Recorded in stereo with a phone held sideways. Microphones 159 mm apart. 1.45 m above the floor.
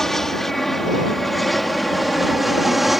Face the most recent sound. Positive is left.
turn(degrees=0)  # may be behind; listen again after turning